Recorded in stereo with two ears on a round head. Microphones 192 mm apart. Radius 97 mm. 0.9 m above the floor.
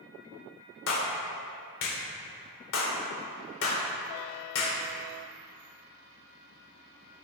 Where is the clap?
70° left (ahead or behind), 2.5 m.